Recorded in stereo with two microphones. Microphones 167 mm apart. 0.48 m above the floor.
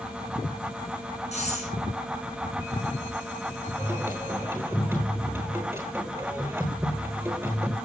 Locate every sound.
1.3 s breathing: 45° left (ahead or behind), 6.5 m
3.8 s singing: 15° right (ahead or behind), 9.5 m